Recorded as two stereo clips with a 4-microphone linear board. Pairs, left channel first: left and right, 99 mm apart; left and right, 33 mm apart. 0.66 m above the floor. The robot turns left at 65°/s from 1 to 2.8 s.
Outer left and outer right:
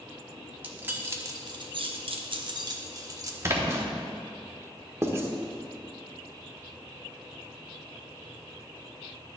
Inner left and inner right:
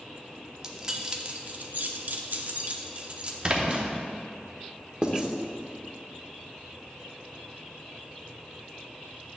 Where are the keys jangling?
20° right (ahead or behind), 0.8 m; by 3.3 s 35° right (ahead or behind), 0.8 m.